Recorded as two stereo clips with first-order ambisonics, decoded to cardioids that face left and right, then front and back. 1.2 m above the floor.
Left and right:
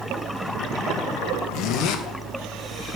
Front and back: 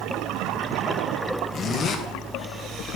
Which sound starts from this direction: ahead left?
A zipper, at 1.5 s.